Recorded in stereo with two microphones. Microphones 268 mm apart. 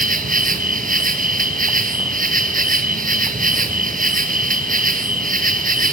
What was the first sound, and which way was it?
An insect, 30° right (ahead or behind).